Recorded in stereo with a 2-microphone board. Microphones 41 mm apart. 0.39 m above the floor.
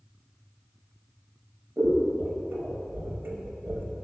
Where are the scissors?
55° right (ahead or behind), 0.6 m.